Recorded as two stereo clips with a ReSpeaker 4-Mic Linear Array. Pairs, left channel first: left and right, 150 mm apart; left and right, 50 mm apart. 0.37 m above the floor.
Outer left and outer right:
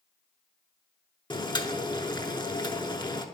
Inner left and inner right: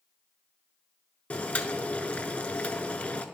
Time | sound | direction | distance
1.3 | boiling | 30° left (ahead or behind) | 0.7 m